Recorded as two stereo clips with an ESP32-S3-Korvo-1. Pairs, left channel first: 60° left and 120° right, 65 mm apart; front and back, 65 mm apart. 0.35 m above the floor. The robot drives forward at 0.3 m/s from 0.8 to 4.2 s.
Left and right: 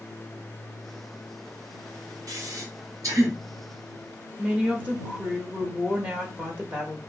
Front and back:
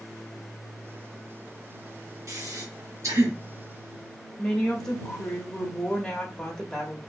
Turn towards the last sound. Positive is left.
turn(degrees=-75)